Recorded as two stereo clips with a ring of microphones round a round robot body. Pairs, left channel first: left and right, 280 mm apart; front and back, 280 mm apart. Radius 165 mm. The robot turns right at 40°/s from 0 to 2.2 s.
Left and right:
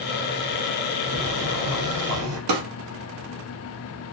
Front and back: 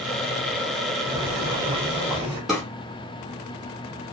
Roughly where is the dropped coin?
I don't hear a dropped coin.